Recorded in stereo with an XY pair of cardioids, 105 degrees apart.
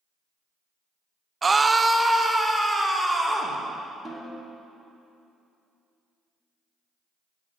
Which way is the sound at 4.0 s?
25° right.